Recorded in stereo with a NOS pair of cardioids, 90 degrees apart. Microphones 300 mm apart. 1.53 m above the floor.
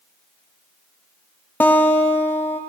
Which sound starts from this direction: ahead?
A guitar, at 1.6 s.